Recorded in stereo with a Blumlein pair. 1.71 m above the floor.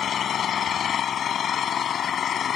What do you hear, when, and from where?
0.0 s an engine running: 25° left